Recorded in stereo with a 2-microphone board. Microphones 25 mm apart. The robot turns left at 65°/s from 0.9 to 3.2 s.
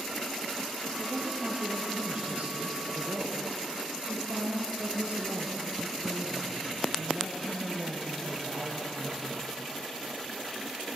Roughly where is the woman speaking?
Ahead.